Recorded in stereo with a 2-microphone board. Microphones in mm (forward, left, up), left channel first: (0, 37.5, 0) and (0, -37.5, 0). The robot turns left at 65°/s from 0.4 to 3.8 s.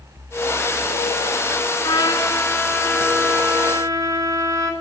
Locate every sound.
1.8 s a trumpet: 80° left, 0.8 m; by 4.7 s 50° right, 0.8 m